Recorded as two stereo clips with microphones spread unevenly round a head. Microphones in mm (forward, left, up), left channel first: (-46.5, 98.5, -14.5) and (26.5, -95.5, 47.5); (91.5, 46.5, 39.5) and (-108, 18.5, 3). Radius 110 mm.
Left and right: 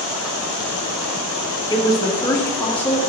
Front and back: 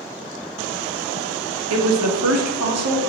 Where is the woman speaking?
175° right, 1.6 m; by 3.0 s 165° right, 2.5 m.